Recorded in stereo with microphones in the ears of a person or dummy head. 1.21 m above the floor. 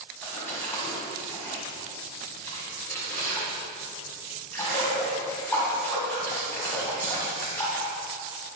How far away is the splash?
About 2.5 m.